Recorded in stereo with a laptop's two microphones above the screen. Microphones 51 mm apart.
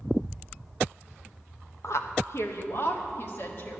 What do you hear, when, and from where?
1.8 s a woman speaking: 65° left (ahead or behind), 0.8 m; by 3.8 s 45° left (ahead or behind), 1.6 m